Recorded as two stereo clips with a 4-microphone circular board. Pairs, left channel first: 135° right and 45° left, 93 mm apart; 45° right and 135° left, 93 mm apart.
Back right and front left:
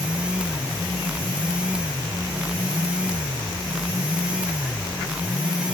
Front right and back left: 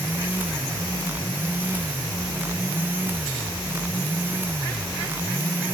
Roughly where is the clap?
I don't hear a clap.